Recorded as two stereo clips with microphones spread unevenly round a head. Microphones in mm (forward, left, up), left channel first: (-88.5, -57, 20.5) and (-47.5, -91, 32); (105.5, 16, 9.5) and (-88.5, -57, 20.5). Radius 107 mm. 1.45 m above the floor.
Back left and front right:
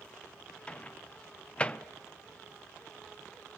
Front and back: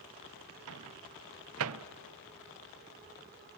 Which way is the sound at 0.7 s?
145° right.